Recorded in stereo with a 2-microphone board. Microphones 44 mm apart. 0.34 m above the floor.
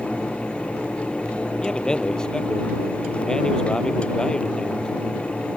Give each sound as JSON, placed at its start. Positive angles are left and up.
{"t": 1.6, "sound": "a man speaking", "side_deg": 15}